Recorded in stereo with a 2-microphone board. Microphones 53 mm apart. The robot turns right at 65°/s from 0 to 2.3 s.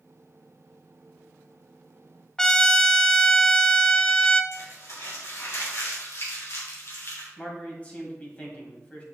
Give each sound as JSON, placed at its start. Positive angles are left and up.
{"t": 2.4, "sound": "a trumpet", "side_deg": 15, "distance_m": 0.5}
{"t": 4.5, "sound": "crumpling", "side_deg": 65, "distance_m": 2.5}
{"t": 7.4, "sound": "a man speaking", "side_deg": 25, "distance_m": 1.9}